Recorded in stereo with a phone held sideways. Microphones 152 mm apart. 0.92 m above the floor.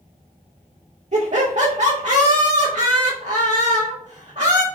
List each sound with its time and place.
1.1 s laughter: 50° right (ahead or behind), 1.0 m